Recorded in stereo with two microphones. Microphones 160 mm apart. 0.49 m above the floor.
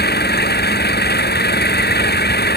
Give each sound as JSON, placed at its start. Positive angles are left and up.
{"t": 0.0, "sound": "an engine running", "side_deg": 90}